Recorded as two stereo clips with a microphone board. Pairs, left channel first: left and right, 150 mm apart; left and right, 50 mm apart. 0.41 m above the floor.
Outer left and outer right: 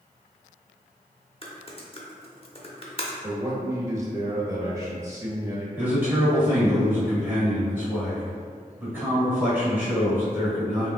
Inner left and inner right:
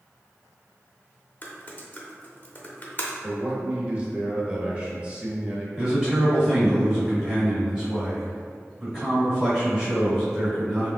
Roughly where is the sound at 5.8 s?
Centre.